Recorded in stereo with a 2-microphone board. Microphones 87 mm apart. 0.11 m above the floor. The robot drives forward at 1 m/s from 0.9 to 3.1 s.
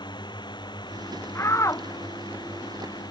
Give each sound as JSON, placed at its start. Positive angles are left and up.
{"t": 0.0, "sound": "a drone", "side_deg": 65}
{"t": 1.4, "sound": "a shout", "side_deg": 35}